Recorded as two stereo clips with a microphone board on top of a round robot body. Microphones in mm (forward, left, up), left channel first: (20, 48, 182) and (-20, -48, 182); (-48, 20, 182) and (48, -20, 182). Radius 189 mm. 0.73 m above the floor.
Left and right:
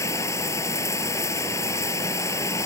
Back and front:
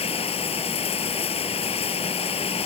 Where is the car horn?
I don't hear a car horn.